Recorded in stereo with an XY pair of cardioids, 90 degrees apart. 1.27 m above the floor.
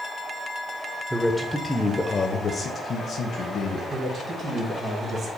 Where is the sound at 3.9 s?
50° right, 1.5 m.